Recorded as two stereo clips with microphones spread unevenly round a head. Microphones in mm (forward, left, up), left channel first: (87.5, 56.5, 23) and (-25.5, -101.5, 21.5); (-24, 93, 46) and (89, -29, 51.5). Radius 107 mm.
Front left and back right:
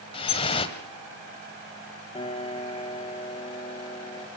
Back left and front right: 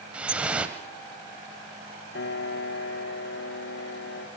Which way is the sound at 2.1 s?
120° left.